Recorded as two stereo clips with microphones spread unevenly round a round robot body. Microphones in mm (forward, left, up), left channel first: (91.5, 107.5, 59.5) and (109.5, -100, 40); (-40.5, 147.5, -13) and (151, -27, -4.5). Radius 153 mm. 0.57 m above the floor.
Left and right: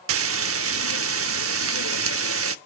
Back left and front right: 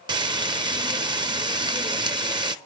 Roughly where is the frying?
Behind right.